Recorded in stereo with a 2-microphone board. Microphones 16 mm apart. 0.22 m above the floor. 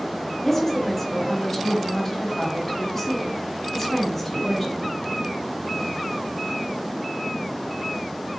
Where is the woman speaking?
15° left (ahead or behind), 1.0 m.